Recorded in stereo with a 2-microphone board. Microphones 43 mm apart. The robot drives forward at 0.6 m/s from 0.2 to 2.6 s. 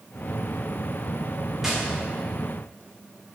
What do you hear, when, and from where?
1.6 s tapping: 5° right (ahead or behind), 1.8 m